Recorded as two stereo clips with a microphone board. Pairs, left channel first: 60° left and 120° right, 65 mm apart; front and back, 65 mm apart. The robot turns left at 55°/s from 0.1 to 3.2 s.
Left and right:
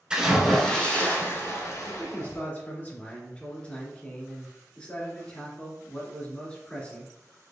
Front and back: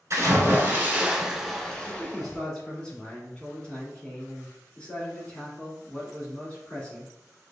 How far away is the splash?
About 1.3 m.